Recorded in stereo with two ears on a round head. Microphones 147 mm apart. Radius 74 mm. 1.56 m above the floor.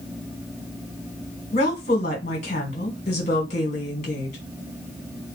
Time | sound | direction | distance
1.5 | a woman speaking | 45° left (ahead or behind) | 1.7 m